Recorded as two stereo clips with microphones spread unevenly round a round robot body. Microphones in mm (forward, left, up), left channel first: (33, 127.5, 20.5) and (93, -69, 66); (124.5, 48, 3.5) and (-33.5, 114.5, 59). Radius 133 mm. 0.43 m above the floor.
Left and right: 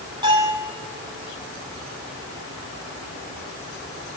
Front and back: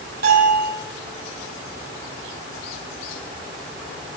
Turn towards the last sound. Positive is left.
turn(degrees=-145)